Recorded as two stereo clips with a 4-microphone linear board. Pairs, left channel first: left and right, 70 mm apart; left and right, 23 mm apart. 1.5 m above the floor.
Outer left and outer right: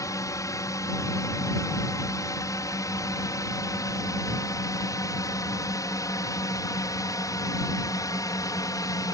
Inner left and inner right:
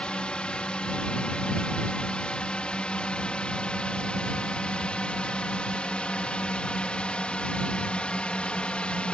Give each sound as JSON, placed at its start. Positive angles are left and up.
{"t": 0.0, "sound": "a drone", "side_deg": 50}